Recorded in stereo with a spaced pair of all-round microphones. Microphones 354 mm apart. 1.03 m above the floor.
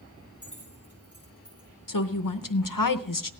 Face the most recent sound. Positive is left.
turn(degrees=65)  # may be behind; listen again after turning